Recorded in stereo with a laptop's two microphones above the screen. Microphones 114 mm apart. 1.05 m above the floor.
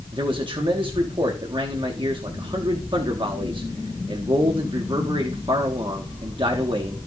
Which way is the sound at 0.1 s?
45° right (ahead or behind).